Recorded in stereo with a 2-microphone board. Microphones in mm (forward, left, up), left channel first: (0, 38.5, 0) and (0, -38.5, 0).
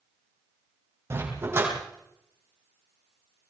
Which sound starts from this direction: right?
A dog barking, at 1.1 s.